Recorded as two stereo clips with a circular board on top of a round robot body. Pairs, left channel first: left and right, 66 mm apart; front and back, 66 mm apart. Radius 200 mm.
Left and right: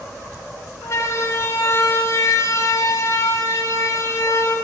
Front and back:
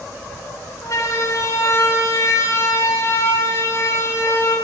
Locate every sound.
0.8 s a siren: 40° left, 5.5 m; by 4.5 s 50° left, 8.5 m